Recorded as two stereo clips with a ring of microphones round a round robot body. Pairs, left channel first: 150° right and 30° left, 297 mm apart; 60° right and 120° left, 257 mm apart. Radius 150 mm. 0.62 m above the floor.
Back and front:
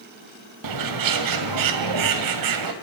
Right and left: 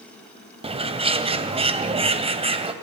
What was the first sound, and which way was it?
A bird, 50° left.